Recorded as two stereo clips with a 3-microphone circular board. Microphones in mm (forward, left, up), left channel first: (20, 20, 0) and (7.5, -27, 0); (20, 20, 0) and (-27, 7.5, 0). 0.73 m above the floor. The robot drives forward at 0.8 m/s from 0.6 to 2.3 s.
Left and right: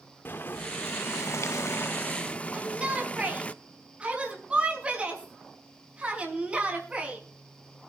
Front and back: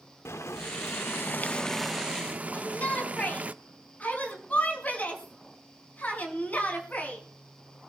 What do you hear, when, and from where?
0.2 s boiling: 30° left, 1.0 m; by 3.5 s 135° left, 0.7 m
2.5 s a shout: 40° right, 6 m